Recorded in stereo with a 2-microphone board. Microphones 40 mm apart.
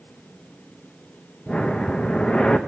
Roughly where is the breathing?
Left.